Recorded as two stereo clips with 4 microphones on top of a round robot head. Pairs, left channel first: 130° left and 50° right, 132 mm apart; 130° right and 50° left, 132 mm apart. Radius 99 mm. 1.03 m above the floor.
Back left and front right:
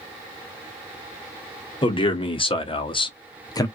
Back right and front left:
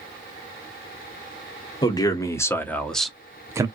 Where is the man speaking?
175° left, 1.2 m; by 3.7 s 90° left, 0.7 m.